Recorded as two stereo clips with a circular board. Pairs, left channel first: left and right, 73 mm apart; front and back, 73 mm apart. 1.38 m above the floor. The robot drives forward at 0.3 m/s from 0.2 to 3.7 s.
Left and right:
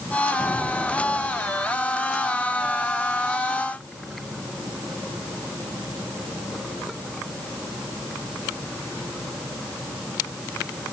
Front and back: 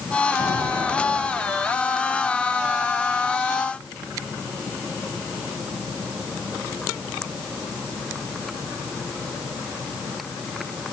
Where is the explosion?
165° left, 4.5 m.